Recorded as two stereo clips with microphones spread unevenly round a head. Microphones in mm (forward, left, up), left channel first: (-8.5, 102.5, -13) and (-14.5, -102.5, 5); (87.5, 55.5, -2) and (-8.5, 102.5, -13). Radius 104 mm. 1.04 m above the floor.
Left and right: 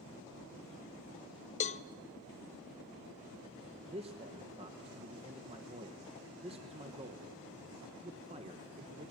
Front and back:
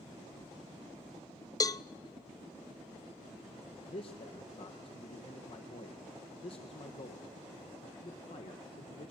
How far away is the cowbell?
About 0.6 m.